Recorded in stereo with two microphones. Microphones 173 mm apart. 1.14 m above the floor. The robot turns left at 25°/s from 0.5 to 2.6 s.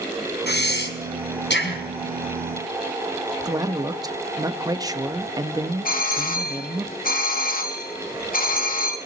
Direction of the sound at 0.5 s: 70° left (ahead or behind).